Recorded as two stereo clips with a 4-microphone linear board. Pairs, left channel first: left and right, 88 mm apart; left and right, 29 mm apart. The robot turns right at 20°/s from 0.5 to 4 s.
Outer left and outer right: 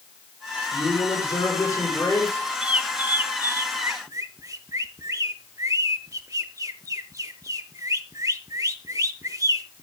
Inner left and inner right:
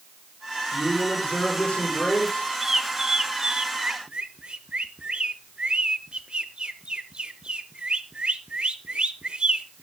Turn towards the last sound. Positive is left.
turn(degrees=-40)  # may be behind; listen again after turning